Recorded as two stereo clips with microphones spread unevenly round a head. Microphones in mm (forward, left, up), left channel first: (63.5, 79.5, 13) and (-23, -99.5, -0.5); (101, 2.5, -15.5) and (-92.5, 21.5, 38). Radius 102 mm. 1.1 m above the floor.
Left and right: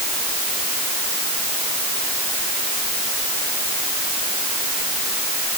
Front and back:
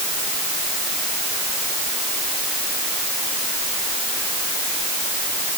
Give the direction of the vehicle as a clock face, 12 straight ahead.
No vehicle in this recording.